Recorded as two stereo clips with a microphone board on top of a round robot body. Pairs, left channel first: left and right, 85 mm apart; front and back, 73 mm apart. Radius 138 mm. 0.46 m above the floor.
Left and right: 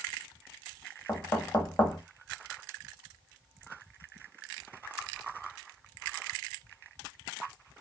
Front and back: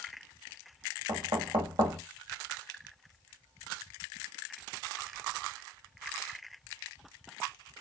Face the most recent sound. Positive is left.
turn(degrees=165)